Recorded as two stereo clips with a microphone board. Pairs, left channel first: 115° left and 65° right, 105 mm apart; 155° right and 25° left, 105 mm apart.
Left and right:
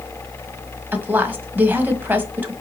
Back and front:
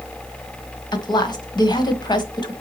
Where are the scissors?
I don't hear scissors.